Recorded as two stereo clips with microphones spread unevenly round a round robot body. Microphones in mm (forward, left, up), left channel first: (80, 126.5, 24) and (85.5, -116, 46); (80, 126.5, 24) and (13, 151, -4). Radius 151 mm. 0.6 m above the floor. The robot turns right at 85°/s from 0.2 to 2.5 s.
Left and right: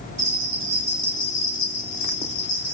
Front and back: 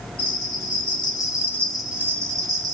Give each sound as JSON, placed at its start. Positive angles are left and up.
{"t": 0.2, "sound": "a bell", "azimuth_deg": -65, "distance_m": 1.1}